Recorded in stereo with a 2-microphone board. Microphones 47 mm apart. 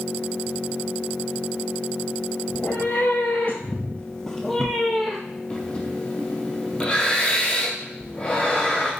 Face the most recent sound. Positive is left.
turn(degrees=30)  # may be behind; listen again after turning